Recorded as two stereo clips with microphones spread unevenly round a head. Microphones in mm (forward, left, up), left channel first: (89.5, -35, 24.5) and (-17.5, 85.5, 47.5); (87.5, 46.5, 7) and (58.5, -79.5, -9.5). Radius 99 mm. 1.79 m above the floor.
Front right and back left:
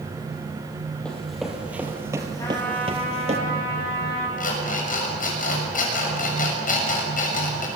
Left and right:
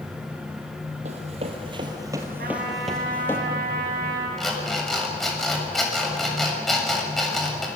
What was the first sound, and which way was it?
Running footsteps, 140° right.